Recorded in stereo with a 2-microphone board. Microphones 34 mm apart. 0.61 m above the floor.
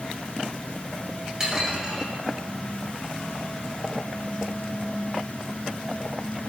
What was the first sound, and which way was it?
Dishes clattering, 20° right (ahead or behind).